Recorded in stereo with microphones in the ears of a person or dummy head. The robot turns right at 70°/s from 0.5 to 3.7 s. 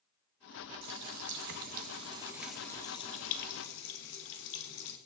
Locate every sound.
0.8 s a running tap: 55° right (ahead or behind), 1.4 m; by 5.0 s 65° left (ahead or behind), 1.4 m